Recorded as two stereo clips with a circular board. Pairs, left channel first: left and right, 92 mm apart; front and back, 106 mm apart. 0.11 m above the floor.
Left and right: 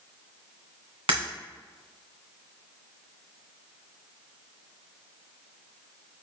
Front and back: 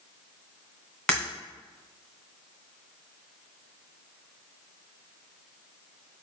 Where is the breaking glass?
85° right, 2 m.